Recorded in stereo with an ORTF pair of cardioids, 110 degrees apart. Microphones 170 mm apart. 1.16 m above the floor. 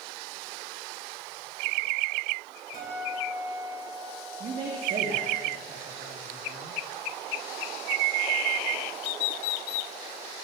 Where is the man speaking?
45° right, 2.0 m.